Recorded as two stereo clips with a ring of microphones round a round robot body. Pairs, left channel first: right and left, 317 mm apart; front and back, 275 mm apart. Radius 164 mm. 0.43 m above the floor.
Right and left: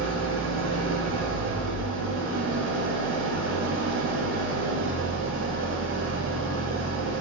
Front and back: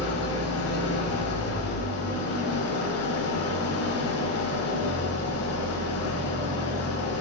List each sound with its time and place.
0.0 s an engine running: 35° left, 1.2 m